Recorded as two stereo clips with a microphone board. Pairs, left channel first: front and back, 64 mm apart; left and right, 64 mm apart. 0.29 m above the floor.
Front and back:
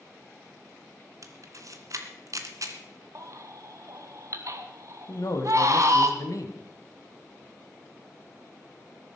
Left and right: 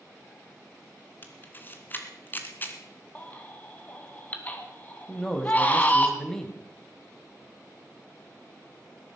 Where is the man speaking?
10° left, 2 m.